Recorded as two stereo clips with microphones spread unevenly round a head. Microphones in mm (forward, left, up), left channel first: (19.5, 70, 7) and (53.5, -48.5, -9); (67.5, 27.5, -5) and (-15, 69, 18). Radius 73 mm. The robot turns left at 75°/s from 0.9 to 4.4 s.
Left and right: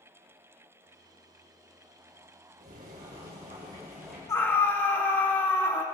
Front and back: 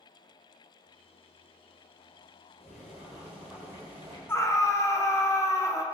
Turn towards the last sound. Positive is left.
turn(degrees=35)